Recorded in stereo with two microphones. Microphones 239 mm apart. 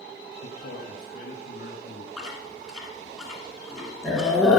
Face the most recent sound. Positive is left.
turn(degrees=0)  # may be behind; listen again after turning